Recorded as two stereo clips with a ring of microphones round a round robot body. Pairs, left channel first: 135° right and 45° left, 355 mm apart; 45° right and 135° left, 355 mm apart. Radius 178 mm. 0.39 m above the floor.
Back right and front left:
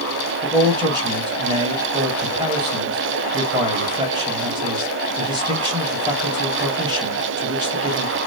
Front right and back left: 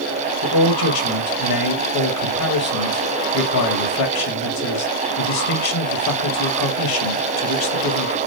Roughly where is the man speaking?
Ahead right.